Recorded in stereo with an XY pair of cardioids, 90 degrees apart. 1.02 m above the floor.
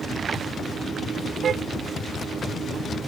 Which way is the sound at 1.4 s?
60° right.